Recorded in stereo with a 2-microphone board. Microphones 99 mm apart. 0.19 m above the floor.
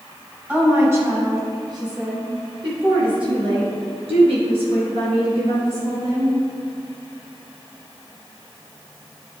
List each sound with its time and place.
0.5 s a woman speaking: 15° right (ahead or behind), 1.7 m; by 6.3 s 70° right (ahead or behind), 5 m